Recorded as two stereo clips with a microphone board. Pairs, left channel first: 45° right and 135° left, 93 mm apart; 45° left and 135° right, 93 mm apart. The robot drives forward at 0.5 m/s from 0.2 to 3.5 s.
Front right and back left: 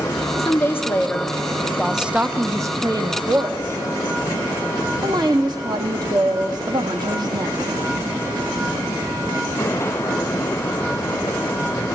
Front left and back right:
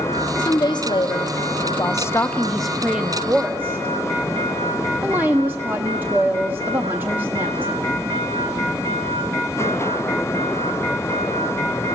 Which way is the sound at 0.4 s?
15° left.